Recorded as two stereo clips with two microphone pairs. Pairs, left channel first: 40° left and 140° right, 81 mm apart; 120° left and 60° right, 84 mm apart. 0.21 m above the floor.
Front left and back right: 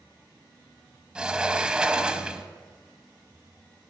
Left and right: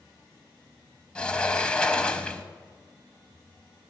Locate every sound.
1.1 s a sliding door: 170° left, 0.8 m